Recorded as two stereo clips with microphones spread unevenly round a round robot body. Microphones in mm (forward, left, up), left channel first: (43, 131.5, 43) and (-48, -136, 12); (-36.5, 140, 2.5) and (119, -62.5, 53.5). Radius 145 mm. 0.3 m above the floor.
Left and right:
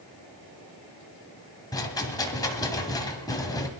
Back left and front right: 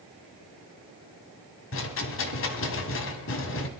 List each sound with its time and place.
1.7 s a rattle: 150° left, 1.5 m